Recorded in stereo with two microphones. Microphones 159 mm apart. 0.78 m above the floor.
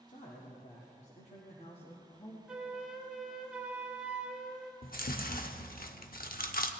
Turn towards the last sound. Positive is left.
turn(degrees=80)